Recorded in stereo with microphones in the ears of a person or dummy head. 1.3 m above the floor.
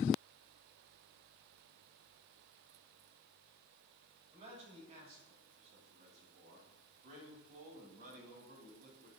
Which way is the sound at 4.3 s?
40° right (ahead or behind).